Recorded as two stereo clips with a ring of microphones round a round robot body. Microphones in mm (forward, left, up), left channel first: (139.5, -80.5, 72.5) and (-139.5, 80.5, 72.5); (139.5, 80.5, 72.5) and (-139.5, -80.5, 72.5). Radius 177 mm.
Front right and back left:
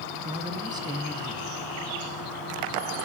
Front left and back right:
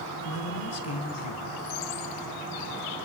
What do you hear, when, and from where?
0.2 s a man speaking: 75° left, 3.5 m